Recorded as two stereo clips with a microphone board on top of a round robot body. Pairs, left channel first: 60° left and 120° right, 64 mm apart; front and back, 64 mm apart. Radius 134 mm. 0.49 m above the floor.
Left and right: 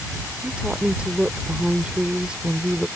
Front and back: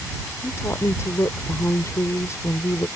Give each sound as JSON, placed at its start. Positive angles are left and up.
{"t": 0.4, "sound": "a woman speaking", "azimuth_deg": -40}